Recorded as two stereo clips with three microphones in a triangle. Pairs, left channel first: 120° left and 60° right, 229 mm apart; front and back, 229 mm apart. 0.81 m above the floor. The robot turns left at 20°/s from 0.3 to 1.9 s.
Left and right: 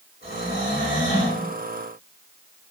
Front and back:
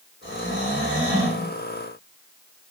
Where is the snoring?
150° left, 1.4 m; by 1.4 s 125° left, 1.4 m.